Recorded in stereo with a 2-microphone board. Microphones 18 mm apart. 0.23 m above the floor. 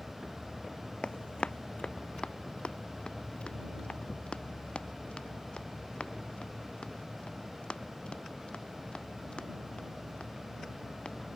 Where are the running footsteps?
75° left (ahead or behind); by 11.2 s 80° left.